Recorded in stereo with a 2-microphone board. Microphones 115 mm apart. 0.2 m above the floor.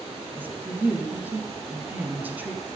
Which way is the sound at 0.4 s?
15° right (ahead or behind).